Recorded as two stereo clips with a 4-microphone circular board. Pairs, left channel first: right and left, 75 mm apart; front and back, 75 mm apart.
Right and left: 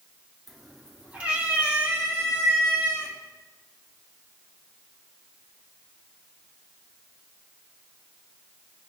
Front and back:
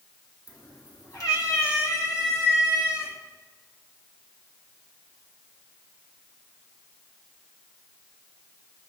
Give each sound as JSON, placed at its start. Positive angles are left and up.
{"t": 0.5, "sound": "a cat meowing", "azimuth_deg": -5, "distance_m": 1.1}